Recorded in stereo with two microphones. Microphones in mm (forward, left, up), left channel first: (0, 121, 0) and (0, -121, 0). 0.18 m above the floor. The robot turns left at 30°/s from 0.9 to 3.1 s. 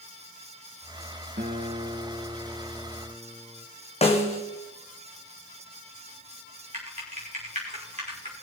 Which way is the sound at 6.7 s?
30° right (ahead or behind).